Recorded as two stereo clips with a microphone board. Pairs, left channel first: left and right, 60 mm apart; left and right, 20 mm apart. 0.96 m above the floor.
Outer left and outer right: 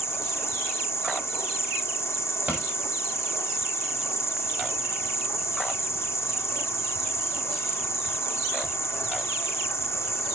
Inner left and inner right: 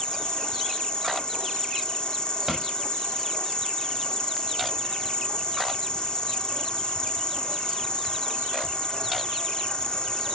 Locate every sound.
0.0 s an insect: 50° left (ahead or behind), 1.8 m
2.5 s a pop: 25° right (ahead or behind), 6 m